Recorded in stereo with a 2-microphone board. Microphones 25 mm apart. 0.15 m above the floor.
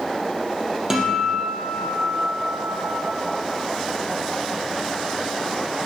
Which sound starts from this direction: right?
A guitar, at 0.9 s.